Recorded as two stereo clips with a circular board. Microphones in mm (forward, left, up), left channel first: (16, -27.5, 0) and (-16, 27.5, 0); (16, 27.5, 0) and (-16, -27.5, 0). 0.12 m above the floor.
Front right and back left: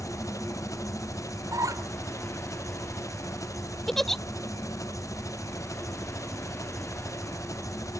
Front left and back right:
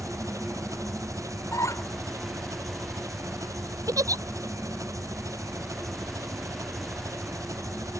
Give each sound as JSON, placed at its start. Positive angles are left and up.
{"t": 0.0, "sound": "an engine running", "azimuth_deg": -90}
{"t": 1.5, "sound": "a squeak", "azimuth_deg": 95}
{"t": 3.9, "sound": "a giggle", "azimuth_deg": -145}